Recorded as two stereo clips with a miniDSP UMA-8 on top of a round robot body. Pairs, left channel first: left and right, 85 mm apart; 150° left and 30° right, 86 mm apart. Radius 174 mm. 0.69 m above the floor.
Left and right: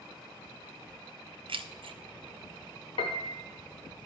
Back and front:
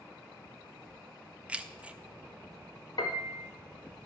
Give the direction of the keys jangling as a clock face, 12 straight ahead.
4 o'clock.